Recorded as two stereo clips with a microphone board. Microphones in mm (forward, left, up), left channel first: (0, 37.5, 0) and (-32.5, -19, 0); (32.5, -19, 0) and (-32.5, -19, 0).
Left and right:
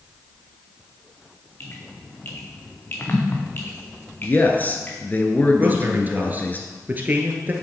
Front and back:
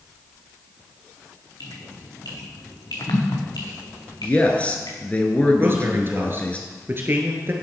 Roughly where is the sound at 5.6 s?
Behind.